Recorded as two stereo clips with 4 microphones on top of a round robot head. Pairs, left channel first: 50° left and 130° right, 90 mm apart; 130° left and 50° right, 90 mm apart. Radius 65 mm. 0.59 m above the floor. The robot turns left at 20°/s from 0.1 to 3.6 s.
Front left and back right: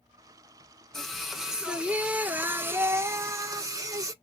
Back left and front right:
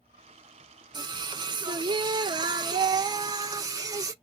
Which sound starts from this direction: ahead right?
Singing, at 0.9 s.